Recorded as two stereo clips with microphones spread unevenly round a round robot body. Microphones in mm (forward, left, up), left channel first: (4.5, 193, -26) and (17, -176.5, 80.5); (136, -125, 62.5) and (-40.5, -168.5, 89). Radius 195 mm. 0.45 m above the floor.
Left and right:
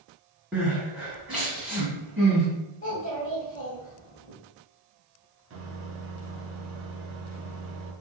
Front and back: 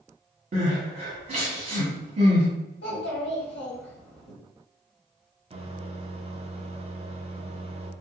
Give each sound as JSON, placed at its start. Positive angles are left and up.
{"t": 0.5, "sound": "crying", "azimuth_deg": 160, "distance_m": 1.4}
{"t": 2.8, "sound": "a child speaking", "azimuth_deg": 25, "distance_m": 1.4}
{"t": 5.5, "sound": "a microwave", "azimuth_deg": -130, "distance_m": 0.5}